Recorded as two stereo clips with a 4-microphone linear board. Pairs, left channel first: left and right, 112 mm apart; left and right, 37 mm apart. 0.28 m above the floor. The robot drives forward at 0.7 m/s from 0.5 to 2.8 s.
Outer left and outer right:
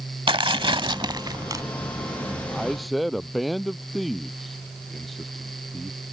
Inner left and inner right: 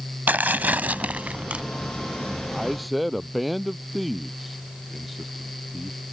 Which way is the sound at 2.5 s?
Centre (ahead or behind).